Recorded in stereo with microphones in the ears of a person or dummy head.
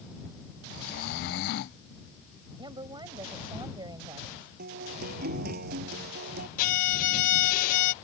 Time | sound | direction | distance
0.7 | snoring | 45° left (ahead or behind) | ?
2.6 | a woman speaking | 25° right (ahead or behind) | ?
4.6 | a guitar | 50° right (ahead or behind) | ?
6.6 | a violin | 50° left (ahead or behind) | ?